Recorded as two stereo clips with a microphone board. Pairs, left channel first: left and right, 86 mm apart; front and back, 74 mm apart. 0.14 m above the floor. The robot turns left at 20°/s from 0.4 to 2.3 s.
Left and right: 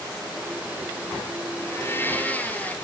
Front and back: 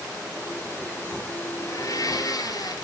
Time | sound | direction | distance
1.6 | a blender | 35° left | 1.9 m